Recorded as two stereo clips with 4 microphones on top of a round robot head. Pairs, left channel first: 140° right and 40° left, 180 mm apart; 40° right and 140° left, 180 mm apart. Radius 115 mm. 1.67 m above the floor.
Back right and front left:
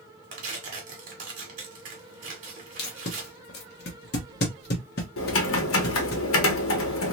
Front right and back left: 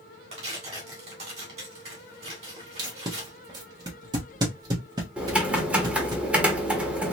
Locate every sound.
0.3 s tearing paper: 85° left, 1.7 m
2.8 s tape being pulled: 155° right, 1.1 m
5.2 s typing on a keyboard: 140° right, 1.3 m